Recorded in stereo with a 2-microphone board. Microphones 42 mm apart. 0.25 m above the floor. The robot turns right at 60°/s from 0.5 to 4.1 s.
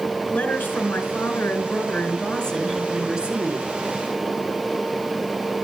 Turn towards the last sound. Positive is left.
turn(degrees=-105)